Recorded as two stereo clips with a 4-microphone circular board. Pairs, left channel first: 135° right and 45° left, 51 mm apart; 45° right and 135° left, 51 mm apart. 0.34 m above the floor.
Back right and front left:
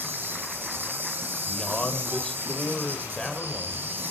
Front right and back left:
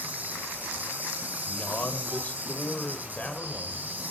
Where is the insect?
85° left, 1.9 m.